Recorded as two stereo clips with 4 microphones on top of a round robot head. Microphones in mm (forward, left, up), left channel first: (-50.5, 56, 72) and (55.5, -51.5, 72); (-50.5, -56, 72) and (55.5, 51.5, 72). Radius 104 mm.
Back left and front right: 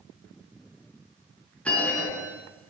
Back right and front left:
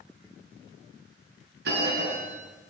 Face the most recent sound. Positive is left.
turn(degrees=50)